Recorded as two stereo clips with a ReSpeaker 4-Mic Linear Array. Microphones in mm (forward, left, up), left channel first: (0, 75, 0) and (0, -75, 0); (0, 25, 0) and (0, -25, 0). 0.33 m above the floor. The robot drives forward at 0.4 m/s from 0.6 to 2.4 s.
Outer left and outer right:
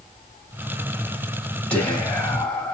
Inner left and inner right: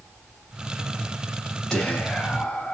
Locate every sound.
1.7 s whispering: 10° left (ahead or behind), 2.0 m